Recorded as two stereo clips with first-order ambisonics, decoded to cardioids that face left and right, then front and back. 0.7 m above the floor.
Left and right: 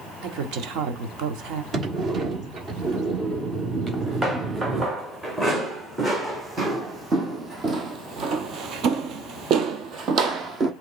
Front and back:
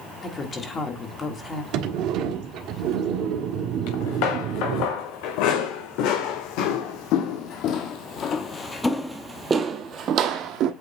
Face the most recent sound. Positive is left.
turn(degrees=-150)